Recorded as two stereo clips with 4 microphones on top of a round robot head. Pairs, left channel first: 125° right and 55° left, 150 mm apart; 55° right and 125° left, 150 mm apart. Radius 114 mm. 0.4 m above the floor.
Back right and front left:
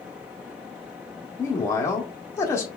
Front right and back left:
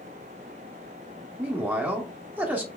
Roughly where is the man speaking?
Behind.